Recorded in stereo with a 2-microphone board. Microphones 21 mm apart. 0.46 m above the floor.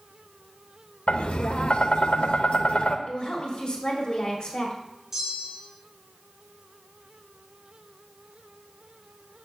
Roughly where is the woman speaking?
Left.